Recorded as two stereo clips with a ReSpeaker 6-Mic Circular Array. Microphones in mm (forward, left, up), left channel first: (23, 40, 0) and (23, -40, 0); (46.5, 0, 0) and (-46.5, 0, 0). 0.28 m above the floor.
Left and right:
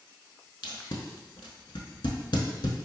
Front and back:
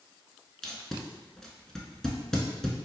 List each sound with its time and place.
0.6 s tape being pulled: 85° left, 0.7 m